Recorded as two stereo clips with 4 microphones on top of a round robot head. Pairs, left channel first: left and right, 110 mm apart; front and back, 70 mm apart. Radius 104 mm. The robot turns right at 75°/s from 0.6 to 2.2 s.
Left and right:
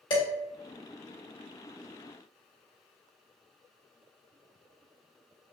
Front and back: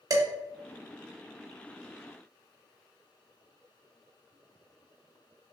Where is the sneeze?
No sneeze in this recording.